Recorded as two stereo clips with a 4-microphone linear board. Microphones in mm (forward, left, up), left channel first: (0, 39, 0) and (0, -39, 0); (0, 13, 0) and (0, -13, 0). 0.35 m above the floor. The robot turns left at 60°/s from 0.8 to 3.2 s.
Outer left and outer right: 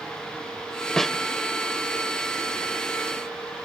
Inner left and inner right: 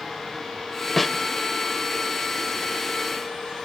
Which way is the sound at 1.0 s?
5° left (ahead or behind).